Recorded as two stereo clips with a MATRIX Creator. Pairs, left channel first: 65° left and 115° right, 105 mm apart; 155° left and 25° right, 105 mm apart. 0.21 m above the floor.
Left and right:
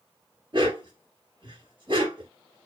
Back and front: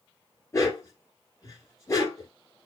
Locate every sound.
0.5 s a dog barking: 145° right, 1.9 m